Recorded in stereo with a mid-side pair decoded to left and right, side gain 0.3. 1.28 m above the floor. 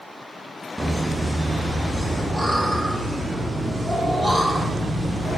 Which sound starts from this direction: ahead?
Laughter, at 0.8 s.